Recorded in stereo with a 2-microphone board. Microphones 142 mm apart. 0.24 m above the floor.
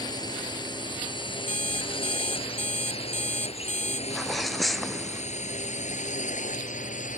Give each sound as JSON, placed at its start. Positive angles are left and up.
{"t": 0.0, "sound": "a drone", "side_deg": 30}
{"t": 1.5, "sound": "an alarm clock", "side_deg": 60}
{"t": 4.1, "sound": "a sneeze", "side_deg": 0}